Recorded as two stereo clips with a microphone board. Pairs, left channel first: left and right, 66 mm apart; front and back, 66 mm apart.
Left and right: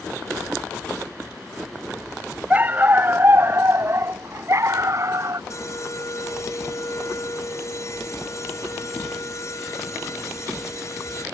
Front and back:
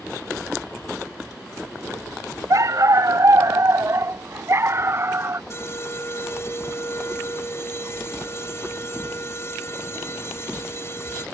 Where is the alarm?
50° left.